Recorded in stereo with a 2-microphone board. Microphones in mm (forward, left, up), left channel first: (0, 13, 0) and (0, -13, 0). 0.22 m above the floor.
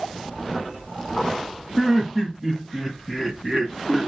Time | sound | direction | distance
1.8 | laughter | 20° right (ahead or behind) | 1.1 m